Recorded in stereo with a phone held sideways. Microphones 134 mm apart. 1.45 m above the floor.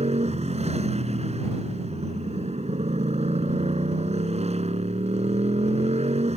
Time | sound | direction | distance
0.0 | a motorcycle | 55° right (ahead or behind) | ?